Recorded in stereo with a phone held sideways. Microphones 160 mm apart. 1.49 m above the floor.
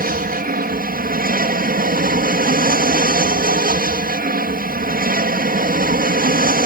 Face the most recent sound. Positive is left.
turn(degrees=-65)  # may be behind; listen again after turning